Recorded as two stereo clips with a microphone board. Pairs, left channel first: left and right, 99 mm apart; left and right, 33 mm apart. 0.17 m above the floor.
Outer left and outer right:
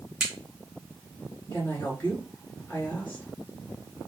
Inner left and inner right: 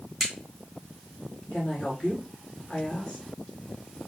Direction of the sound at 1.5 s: 20° left (ahead or behind).